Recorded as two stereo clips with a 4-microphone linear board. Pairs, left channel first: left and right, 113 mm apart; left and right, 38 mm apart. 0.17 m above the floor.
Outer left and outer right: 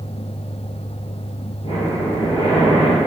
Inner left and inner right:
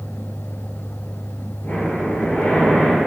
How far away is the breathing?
About 1.9 m.